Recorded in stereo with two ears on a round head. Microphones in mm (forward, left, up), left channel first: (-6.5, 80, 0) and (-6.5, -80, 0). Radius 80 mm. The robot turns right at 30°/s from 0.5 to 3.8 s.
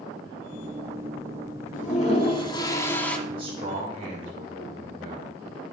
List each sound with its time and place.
1.7 s a toilet flushing: 130° left, 0.9 m; by 3.2 s 175° left, 0.9 m
3.3 s a man speaking: 15° right (ahead or behind), 3 m; by 5.4 s 30° right (ahead or behind), 3 m